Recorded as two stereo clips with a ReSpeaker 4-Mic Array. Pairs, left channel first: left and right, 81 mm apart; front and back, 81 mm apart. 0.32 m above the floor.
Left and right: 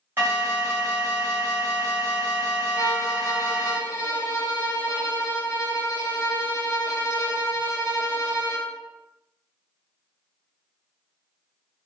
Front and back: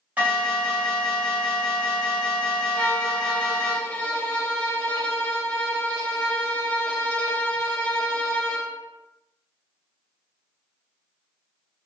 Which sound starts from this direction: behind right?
An alarm, at 0.2 s.